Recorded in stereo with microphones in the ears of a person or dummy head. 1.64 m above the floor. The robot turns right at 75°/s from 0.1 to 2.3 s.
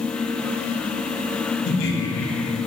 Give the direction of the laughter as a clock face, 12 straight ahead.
10 o'clock.